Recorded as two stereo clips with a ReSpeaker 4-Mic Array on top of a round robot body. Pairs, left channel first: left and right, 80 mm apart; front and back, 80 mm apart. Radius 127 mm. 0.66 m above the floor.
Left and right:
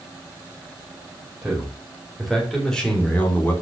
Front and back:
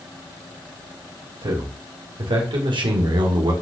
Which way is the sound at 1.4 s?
170° right.